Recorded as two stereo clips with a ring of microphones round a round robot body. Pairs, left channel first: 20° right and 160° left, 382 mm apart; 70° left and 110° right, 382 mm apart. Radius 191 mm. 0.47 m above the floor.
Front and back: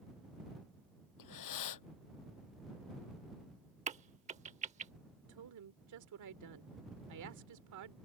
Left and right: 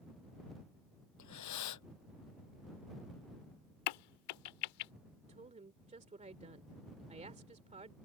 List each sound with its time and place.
1.2 s breathing: 20° left
3.9 s a crack: 85° left
5.3 s a woman speaking: straight behind